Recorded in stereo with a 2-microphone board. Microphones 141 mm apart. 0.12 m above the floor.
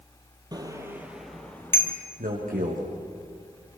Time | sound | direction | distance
0.5 | a bicycle bell | 30° right (ahead or behind) | 2.5 m
2.2 | a man speaking | 75° right (ahead or behind) | 6.5 m